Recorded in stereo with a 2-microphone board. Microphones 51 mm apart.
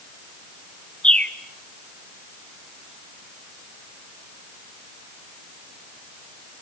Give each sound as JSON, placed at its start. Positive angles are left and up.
{"t": 1.0, "sound": "a bird", "side_deg": 20, "distance_m": 1.1}